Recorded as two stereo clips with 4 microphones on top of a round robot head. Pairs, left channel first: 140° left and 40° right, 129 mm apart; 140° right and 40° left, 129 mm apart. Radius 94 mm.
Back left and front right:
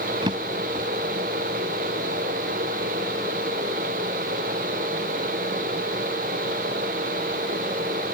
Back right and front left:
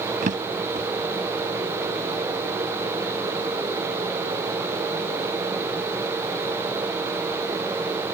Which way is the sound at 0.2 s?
15° left.